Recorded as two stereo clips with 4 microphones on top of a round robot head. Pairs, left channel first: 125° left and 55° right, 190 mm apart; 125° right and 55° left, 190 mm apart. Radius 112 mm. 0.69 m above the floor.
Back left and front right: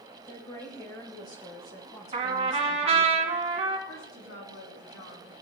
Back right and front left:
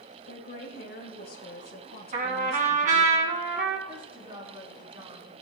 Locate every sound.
0.3 s a woman speaking: 165° right, 3 m
2.1 s a trumpet: 5° left, 1.8 m
3.9 s a woman speaking: 115° left, 6 m